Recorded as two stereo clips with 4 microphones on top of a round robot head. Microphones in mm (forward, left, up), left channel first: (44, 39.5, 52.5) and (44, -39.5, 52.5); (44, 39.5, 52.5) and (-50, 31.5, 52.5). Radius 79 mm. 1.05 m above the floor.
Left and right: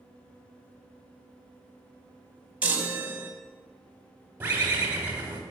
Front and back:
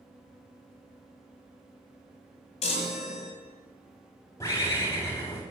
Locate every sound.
2.6 s a chime: 15° right, 1.0 m
4.4 s a bird: 45° right, 0.9 m